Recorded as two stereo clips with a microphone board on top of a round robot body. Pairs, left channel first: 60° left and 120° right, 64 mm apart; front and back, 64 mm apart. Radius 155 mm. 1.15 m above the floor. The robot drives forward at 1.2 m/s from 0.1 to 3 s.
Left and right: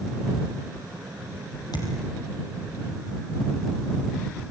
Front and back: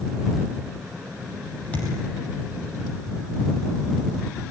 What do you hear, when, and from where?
1.7 s a thud: 70° left, 5.5 m; by 1.9 s 75° left, 5 m